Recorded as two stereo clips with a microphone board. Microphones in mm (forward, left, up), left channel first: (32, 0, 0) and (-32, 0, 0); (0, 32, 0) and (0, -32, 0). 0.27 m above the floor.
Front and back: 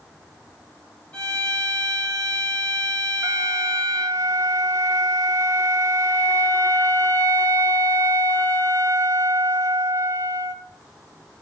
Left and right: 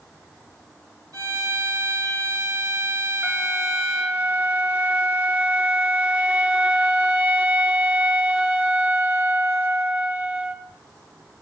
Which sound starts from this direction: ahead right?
A violin, at 1.1 s.